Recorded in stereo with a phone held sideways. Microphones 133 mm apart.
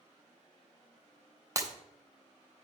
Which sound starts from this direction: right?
Breaking glass, at 1.6 s.